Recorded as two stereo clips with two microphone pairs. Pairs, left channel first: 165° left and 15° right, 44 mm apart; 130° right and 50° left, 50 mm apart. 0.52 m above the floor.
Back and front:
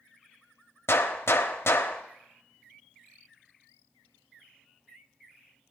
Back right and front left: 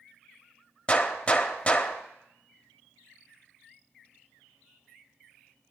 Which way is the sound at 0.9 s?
165° left.